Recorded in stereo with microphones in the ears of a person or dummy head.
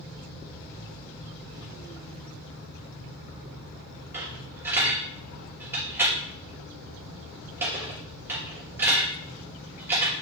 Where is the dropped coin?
15° right (ahead or behind), 5 m.